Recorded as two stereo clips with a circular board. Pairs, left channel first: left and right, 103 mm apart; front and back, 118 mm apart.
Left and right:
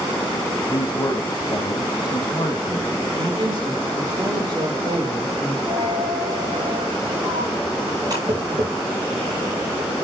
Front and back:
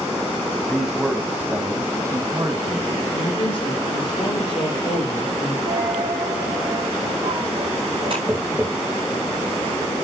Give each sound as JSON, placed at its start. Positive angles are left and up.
{"t": 0.7, "sound": "a man speaking", "azimuth_deg": 90, "distance_m": 1.4}
{"t": 3.1, "sound": "a man speaking", "azimuth_deg": -45, "distance_m": 4.5}
{"t": 5.7, "sound": "a dropped coin", "azimuth_deg": -140, "distance_m": 6.5}
{"t": 8.3, "sound": "tapping", "azimuth_deg": -110, "distance_m": 3.0}